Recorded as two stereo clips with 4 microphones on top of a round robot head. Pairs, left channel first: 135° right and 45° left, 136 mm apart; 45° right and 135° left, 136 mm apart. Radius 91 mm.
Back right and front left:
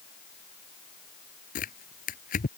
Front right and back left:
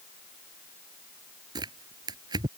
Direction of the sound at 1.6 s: 165° right.